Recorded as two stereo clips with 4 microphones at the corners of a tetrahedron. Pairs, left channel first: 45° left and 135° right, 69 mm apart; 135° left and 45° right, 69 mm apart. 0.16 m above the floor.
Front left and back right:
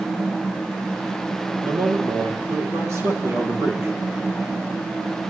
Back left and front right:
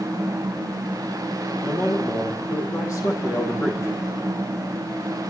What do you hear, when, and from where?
1.6 s a man speaking: 175° left, 4 m